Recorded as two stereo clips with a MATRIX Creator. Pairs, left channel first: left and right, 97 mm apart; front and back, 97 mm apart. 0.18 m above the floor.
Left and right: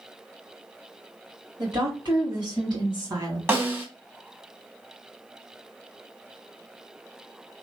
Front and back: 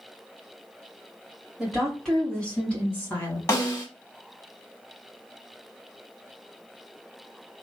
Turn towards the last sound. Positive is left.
turn(degrees=-35)